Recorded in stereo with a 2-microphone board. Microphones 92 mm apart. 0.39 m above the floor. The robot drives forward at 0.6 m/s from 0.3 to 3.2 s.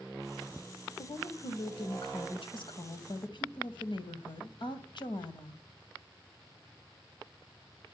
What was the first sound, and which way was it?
A woman speaking, 55° left (ahead or behind).